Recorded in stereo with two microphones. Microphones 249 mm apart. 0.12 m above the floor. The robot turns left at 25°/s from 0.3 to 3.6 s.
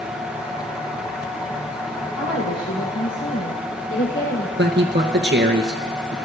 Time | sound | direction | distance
2.1 | a woman speaking | 100° left | 4.5 m
4.6 | a man speaking | 45° right (ahead or behind) | 1.6 m